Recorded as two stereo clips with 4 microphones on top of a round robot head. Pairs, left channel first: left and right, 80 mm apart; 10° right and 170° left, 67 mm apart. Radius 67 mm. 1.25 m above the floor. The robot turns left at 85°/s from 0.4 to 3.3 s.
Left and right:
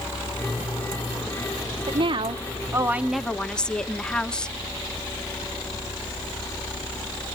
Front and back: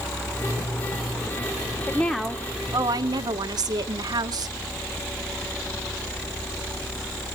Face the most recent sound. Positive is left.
turn(degrees=170)